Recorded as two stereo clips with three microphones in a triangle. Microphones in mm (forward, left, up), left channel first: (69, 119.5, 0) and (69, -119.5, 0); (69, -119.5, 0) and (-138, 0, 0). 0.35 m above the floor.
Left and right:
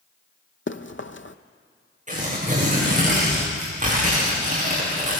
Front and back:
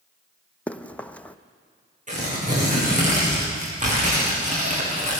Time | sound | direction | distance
0.7 | running footsteps | 55° left | 0.8 m
2.1 | tearing paper | 150° right | 6.5 m